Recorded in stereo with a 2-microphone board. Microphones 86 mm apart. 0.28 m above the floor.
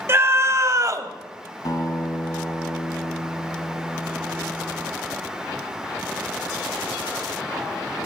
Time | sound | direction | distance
0.1 | a scream | 30° right (ahead or behind) | 1.3 m
1.6 | a guitar | 50° left (ahead or behind) | 1.6 m